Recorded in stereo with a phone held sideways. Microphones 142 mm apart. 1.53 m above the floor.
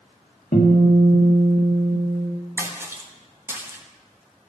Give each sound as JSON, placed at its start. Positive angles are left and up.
{"t": 0.5, "sound": "a guitar", "side_deg": 70, "distance_m": 1.6}
{"t": 2.6, "sound": "a splash", "side_deg": -15, "distance_m": 0.9}